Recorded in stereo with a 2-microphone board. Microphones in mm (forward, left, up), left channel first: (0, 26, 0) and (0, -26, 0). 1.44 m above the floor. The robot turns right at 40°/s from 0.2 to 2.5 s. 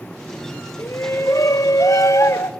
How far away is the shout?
About 0.6 m.